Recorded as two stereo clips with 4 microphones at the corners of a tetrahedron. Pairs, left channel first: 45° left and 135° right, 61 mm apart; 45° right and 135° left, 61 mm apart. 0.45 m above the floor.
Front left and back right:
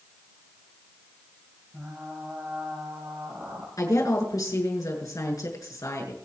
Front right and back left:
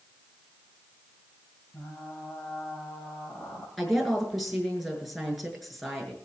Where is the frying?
70° right, 8.5 m.